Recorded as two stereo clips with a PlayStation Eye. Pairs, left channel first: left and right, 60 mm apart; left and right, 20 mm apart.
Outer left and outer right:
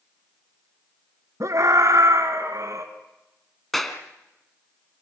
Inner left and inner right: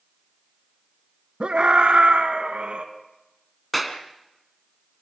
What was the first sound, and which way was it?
A scream, 60° right (ahead or behind).